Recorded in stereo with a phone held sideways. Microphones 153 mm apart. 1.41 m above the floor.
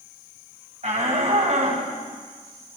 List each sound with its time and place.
0.8 s a shout: 45° right (ahead or behind), 9.5 m; by 1.8 s 50° right (ahead or behind), 8.5 m